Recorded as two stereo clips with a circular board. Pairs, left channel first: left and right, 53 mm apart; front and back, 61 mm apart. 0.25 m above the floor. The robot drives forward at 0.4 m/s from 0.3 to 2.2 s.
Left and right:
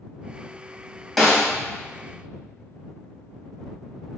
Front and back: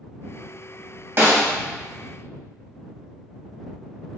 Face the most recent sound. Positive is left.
turn(degrees=180)